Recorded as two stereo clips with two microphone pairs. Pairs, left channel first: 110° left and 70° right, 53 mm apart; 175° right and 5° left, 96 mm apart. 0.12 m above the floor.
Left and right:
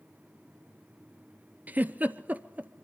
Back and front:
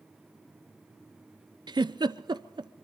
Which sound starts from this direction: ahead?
A giggle, at 1.7 s.